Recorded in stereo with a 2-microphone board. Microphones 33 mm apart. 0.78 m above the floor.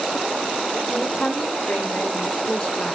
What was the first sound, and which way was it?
A woman speaking, 35° left (ahead or behind).